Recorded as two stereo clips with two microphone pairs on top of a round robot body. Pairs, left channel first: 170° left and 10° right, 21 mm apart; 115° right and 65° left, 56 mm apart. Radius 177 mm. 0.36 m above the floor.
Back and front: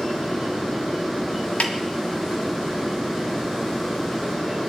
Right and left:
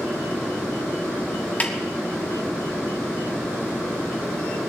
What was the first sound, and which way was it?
A snare drum, 175° right.